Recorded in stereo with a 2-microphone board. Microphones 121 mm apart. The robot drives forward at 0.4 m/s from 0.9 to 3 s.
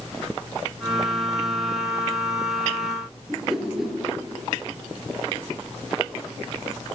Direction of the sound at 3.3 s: 5° right (ahead or behind).